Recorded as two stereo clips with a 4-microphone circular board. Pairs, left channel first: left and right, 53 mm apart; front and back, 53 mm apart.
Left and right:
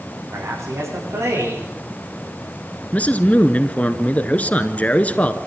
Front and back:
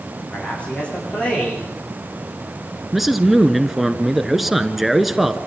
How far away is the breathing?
I don't hear breathing.